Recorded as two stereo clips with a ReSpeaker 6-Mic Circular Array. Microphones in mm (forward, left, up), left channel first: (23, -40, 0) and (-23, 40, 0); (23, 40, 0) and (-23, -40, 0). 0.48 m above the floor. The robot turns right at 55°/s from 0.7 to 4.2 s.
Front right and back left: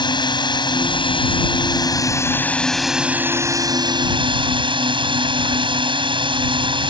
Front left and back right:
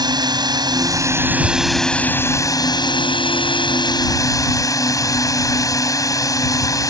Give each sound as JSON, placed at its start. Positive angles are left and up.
{"t": 0.0, "sound": "a drone", "azimuth_deg": -85}